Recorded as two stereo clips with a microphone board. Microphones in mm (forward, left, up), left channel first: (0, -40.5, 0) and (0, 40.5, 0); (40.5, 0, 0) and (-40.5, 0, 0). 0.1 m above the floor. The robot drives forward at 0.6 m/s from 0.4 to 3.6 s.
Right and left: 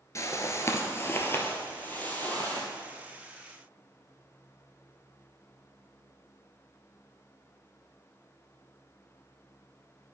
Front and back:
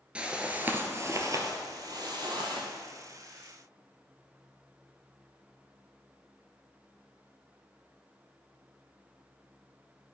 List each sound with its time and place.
0.1 s a whoosh: 110° right, 0.8 m; by 2.7 s 160° right, 1.8 m